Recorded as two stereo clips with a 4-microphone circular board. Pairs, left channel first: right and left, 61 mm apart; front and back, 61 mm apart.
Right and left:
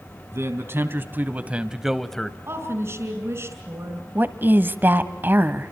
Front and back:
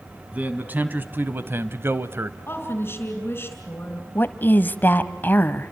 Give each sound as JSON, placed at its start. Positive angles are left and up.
{"t": 0.3, "sound": "a man speaking", "azimuth_deg": 120, "distance_m": 2.0}
{"t": 2.5, "sound": "a woman speaking", "azimuth_deg": 55, "distance_m": 3.5}
{"t": 4.2, "sound": "a woman speaking", "azimuth_deg": 45, "distance_m": 1.3}